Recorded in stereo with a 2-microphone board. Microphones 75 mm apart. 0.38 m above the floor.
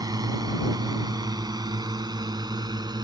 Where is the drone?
60° right (ahead or behind); by 3.0 s 70° right (ahead or behind).